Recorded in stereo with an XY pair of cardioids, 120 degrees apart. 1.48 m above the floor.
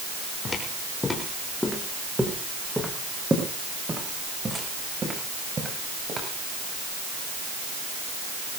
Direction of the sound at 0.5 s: 30° left.